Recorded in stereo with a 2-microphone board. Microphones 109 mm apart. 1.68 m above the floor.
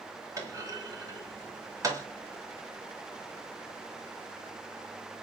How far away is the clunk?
About 2.0 m.